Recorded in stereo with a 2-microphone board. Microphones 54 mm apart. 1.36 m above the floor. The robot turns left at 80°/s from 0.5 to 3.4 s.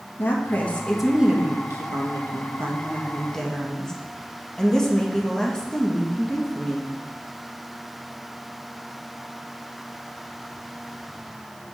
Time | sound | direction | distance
0.2 | a woman speaking | 40° left | 1.6 m